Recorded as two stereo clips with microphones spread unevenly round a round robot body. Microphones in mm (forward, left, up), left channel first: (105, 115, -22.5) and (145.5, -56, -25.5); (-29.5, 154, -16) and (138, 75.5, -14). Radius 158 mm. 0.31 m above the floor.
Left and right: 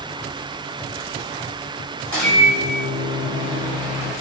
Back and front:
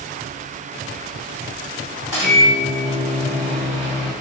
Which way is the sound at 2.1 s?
90° right.